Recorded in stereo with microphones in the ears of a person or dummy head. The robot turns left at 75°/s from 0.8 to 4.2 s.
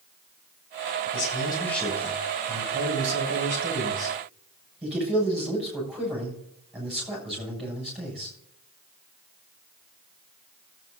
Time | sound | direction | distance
1.1 | a man speaking | 55° left | 7 m